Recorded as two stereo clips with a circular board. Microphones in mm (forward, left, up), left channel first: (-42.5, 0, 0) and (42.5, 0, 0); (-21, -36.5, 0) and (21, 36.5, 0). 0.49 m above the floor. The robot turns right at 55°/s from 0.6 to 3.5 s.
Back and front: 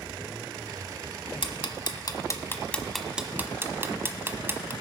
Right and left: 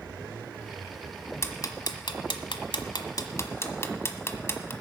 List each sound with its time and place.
1.4 s ticking: 175° right, 1.1 m; by 4.7 s 60° right, 1.1 m